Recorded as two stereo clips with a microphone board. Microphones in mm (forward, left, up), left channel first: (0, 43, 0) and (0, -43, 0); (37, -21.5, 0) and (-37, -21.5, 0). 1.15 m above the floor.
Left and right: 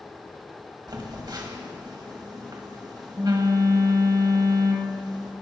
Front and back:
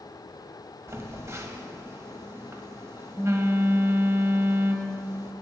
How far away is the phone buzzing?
About 1.6 m.